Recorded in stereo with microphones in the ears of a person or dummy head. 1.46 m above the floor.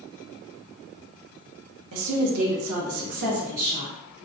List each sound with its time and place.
1.9 s a woman speaking: 75° right (ahead or behind), 0.9 m; by 3.9 s 35° right (ahead or behind), 0.9 m